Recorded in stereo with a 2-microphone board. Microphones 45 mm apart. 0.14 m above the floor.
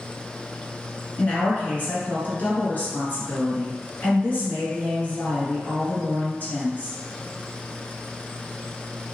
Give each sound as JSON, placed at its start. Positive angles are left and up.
{"t": 1.2, "sound": "a woman speaking", "side_deg": 45, "distance_m": 1.4}